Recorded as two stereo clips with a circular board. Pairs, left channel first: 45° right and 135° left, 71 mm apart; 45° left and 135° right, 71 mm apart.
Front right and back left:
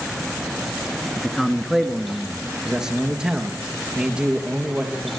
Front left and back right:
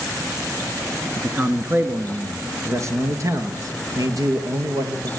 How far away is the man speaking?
About 1.5 m.